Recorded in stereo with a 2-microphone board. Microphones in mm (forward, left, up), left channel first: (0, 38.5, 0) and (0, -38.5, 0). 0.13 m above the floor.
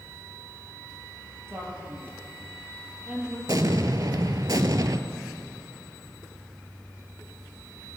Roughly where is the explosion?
Right.